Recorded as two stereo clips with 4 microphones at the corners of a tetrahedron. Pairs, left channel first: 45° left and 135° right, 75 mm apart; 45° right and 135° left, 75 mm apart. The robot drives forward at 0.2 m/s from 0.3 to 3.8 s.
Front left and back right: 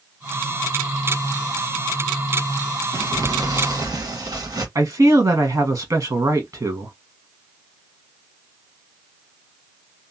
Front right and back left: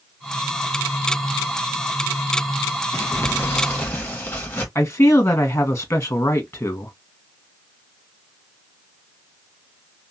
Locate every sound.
2.9 s crumpling: 100° right, 1.3 m; by 4.7 s 110° right, 1.3 m
4.8 s a man speaking: 100° right, 1.0 m